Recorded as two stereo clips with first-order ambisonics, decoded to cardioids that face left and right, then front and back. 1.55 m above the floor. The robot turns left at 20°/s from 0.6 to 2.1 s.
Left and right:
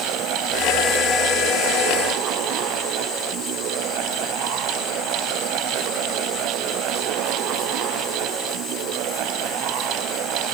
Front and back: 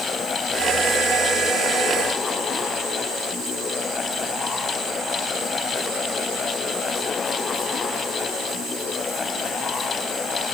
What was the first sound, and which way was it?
Only background noise.